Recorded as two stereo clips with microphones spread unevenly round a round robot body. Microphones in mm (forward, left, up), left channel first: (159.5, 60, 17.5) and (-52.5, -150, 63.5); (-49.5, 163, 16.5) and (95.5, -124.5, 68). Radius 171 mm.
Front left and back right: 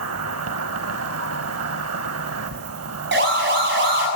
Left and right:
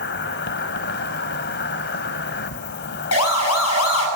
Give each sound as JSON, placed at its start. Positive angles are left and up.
{"t": 0.0, "sound": "an insect", "azimuth_deg": 180, "distance_m": 0.8}
{"t": 3.1, "sound": "a siren", "azimuth_deg": 165, "distance_m": 6.5}